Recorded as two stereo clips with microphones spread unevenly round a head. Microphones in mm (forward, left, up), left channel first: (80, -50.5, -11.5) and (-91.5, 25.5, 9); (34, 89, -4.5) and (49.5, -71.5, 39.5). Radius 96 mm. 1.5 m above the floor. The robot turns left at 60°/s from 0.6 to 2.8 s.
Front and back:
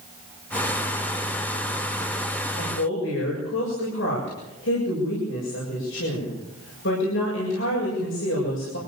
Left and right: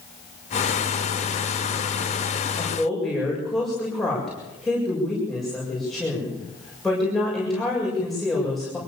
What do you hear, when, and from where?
2.5 s a woman speaking: 20° left, 7.5 m; by 8.8 s 5° left, 7.5 m